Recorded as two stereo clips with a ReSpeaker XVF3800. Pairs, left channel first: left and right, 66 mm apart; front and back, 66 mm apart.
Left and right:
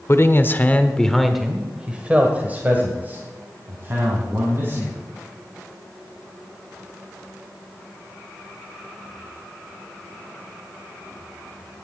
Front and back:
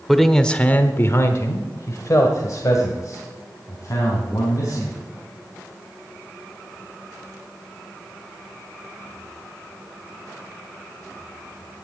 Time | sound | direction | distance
0.1 | a man speaking | 90° left | 1.1 m